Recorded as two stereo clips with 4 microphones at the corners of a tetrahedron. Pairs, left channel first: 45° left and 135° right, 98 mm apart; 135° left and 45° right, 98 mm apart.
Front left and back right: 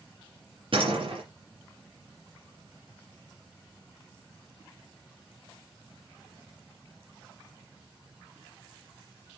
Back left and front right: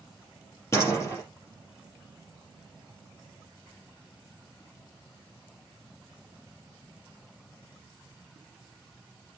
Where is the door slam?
165° right, 4.5 m.